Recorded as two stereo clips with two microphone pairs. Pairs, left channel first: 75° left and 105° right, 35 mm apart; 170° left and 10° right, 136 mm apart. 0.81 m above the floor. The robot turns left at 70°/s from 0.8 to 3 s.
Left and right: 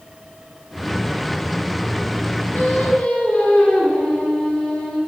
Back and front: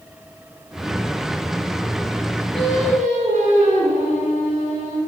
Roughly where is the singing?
Ahead left.